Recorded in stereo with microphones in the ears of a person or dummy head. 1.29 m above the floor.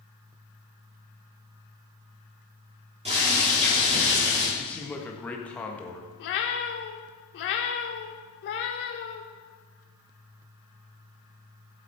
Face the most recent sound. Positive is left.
turn(degrees=60)  # may be behind; listen again after turning